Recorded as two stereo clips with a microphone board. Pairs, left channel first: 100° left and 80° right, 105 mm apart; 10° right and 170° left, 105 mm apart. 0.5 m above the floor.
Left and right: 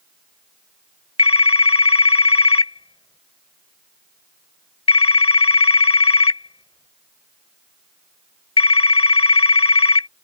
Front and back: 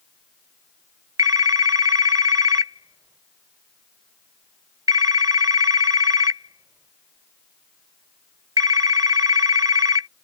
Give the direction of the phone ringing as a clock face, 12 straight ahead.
8 o'clock.